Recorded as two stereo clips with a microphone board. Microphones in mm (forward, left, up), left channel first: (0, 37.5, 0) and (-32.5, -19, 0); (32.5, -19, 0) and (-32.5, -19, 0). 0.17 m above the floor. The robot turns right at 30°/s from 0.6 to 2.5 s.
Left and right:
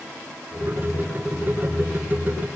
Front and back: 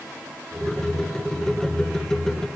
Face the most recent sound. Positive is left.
No sound to turn to.